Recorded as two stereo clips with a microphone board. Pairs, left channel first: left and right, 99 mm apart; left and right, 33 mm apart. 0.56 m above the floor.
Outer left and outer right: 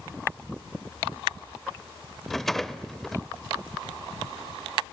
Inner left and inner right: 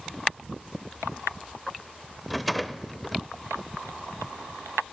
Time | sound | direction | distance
2.3 | a rattle | 5° left (ahead or behind) | 0.6 m